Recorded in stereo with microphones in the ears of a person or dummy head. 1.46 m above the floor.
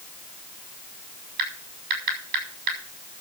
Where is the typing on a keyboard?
55° right (ahead or behind), 6.5 m.